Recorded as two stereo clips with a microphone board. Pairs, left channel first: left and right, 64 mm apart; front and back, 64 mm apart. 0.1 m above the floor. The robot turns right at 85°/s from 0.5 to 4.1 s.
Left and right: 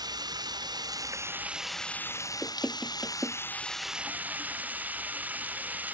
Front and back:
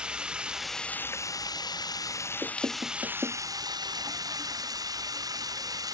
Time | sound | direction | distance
0.0 | running water | 105° right | ?
2.4 | knocking | 145° left | ?